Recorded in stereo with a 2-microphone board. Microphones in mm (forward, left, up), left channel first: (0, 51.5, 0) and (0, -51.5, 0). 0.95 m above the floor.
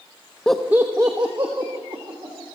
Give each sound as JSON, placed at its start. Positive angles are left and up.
{"t": 0.5, "sound": "laughter", "side_deg": 10, "distance_m": 0.7}